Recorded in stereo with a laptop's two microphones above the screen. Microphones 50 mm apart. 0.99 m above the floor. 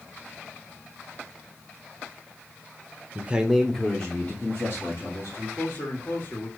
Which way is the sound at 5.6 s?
40° left (ahead or behind).